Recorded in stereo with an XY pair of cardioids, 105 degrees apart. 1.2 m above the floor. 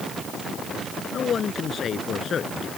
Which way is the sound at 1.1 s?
50° left.